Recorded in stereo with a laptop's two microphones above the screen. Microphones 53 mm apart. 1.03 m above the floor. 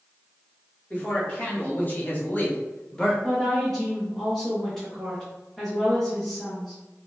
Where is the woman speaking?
5° left (ahead or behind), 0.5 m.